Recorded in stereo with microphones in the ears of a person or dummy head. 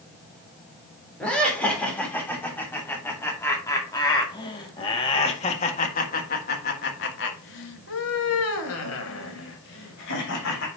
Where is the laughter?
5° left (ahead or behind), 3.5 m; by 10.7 s 60° left (ahead or behind), 2.5 m.